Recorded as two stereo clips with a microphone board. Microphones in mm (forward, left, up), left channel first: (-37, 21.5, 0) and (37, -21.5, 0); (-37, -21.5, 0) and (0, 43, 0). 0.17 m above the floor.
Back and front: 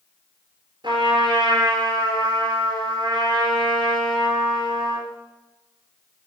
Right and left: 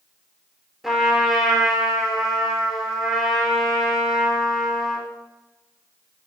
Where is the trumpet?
25° right, 4 m.